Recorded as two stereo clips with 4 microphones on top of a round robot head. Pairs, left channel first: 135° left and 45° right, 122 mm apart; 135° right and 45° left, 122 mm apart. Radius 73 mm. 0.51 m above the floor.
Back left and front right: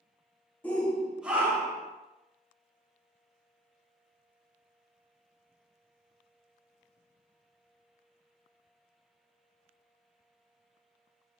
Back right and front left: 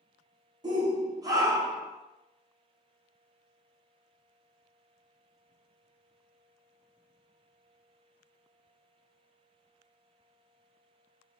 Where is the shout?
65° left, 1.2 m; by 1.9 s 10° right, 1.2 m.